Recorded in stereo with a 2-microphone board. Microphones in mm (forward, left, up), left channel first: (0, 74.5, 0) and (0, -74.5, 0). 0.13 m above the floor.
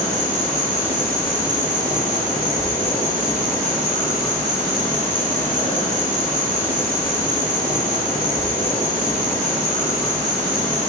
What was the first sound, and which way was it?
An insect, 50° right (ahead or behind).